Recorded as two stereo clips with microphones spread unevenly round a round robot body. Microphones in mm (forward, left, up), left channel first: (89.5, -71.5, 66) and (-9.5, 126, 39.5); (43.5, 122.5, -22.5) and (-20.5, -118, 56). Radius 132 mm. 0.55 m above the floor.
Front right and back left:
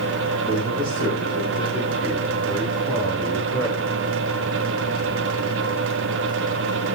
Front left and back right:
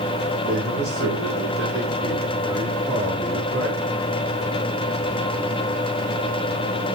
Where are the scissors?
I don't hear scissors.